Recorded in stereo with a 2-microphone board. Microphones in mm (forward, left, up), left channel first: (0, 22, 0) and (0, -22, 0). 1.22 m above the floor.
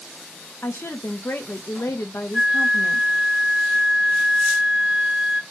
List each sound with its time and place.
0.6 s a woman speaking: 65° left (ahead or behind), 0.7 m
2.3 s a flute: 10° right (ahead or behind), 0.5 m